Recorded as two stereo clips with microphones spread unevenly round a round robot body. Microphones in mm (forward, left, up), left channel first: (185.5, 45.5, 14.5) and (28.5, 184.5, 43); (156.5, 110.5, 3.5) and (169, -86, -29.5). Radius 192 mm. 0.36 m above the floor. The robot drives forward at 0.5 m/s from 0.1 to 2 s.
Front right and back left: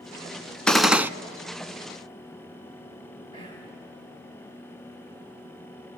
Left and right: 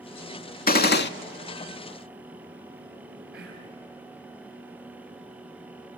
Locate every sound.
0.7 s a gunshot: 45° left, 0.9 m; by 1.1 s 60° left, 0.8 m
3.3 s whispering: 165° right, 2 m